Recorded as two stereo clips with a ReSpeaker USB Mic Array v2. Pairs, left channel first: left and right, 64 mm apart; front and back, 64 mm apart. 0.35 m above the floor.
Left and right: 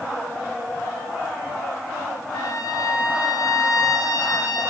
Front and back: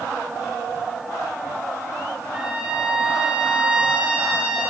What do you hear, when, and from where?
2.3 s a trumpet: 105° left, 5 m